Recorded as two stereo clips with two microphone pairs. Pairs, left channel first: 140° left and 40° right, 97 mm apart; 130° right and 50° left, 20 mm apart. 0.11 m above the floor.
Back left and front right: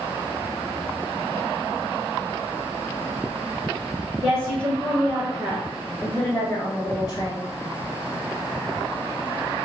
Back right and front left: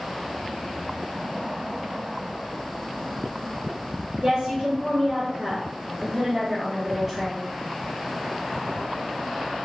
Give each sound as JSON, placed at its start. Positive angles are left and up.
{"t": 4.2, "sound": "a woman speaking", "azimuth_deg": 15, "distance_m": 1.7}